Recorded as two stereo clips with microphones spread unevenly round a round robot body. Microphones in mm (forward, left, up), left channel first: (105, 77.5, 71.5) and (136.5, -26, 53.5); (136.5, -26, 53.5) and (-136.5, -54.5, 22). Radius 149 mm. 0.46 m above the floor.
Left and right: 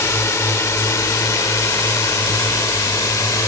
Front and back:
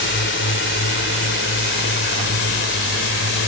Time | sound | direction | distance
0.0 | a drone | 45° left | ?